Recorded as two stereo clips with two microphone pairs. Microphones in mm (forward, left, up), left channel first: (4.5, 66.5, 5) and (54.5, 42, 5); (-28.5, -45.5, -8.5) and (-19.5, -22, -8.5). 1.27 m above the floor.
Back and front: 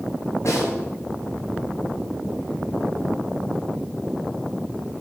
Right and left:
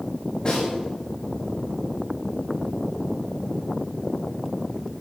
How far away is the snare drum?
About 8 m.